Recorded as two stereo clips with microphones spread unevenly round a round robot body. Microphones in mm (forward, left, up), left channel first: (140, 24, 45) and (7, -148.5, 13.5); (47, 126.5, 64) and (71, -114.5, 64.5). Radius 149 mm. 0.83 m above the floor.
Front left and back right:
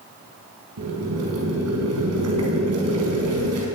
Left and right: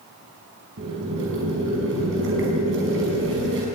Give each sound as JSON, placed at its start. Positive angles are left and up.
{"t": 0.8, "sound": "boiling", "azimuth_deg": -130, "distance_m": 5.5}